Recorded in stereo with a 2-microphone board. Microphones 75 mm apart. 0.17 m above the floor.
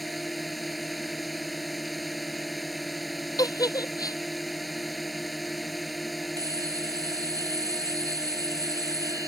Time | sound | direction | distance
0.0 | a drone | centre (ahead or behind) | ?
3.4 | a giggle | 65° left (ahead or behind) | ?
6.4 | a bell | 55° right (ahead or behind) | ?